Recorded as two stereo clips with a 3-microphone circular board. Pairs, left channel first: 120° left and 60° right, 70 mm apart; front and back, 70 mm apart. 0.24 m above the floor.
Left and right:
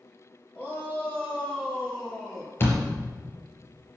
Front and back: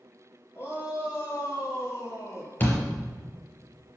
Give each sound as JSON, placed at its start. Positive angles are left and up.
{"t": 0.6, "sound": "a shout", "azimuth_deg": 55, "distance_m": 6.0}
{"t": 2.6, "sound": "a door slam", "azimuth_deg": 60, "distance_m": 4.0}